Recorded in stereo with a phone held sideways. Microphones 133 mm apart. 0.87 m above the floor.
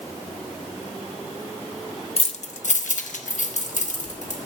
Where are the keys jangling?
50° left (ahead or behind), 0.6 m; by 4.4 s 60° left (ahead or behind), 1.9 m.